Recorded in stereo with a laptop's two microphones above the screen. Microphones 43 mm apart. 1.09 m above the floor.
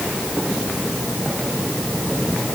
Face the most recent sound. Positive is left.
No sound to turn to.